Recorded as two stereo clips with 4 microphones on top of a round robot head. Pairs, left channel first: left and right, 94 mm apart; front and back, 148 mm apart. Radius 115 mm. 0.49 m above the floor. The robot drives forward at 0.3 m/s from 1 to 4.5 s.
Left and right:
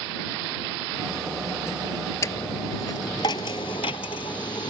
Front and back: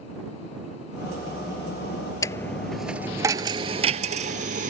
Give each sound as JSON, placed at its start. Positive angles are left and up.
{"t": 2.2, "sound": "a dropped coin", "azimuth_deg": 55}